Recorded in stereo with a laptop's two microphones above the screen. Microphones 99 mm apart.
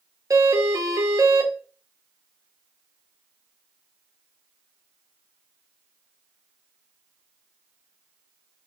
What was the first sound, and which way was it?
A doorbell, 35° right (ahead or behind).